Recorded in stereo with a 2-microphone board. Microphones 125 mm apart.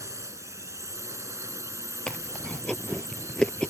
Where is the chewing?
10° left (ahead or behind).